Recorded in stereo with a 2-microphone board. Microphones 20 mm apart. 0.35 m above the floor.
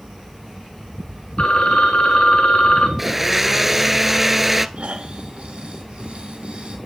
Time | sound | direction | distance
1.4 | a phone ringing | 65° left (ahead or behind) | 3 m
3.0 | a blender | 10° right (ahead or behind) | 0.9 m
4.8 | snoring | 75° right (ahead or behind) | 5.5 m